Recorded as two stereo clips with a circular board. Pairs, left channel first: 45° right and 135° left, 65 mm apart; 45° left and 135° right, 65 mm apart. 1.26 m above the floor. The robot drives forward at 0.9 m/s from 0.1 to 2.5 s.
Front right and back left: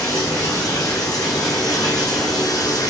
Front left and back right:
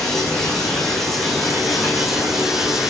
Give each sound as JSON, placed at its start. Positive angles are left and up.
{"t": 0.0, "sound": "running water", "azimuth_deg": -35, "distance_m": 7.0}